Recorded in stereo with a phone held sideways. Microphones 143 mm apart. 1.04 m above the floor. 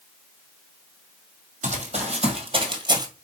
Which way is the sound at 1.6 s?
55° right (ahead or behind).